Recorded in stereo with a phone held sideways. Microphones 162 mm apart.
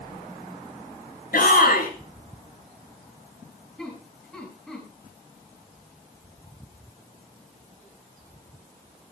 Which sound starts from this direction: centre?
Laughter, at 3.8 s.